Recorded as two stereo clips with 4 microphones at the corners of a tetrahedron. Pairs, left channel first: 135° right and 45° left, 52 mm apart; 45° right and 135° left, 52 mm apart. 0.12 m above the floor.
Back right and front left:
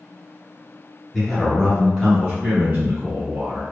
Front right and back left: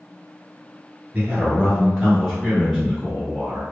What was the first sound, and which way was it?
A man speaking, 140° left.